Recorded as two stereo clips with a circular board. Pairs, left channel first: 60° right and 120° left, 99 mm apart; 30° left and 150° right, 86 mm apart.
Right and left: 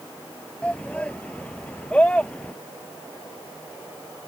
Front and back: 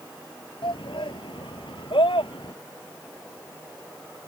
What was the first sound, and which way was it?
A shout, 15° left.